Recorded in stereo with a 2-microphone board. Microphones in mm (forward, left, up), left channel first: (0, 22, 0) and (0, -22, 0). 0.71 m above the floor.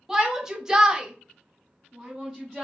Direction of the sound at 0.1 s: 10° right (ahead or behind).